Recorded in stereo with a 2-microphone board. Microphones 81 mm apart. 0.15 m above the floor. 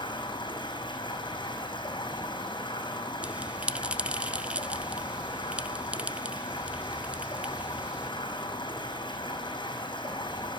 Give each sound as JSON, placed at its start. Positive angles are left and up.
{"t": 0.0, "sound": "running water", "side_deg": 75, "distance_m": 5.0}
{"t": 3.2, "sound": "a bell", "side_deg": -15, "distance_m": 0.6}